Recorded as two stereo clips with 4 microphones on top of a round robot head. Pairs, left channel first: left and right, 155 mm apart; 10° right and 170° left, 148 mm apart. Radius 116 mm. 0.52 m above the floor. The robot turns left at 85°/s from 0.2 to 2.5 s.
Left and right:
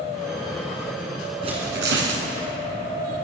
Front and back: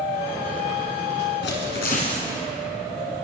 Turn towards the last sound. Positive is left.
turn(degrees=-110)